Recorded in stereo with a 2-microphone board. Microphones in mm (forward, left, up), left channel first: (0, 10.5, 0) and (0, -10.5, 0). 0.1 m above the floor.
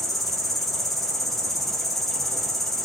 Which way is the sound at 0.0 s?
5° left (ahead or behind).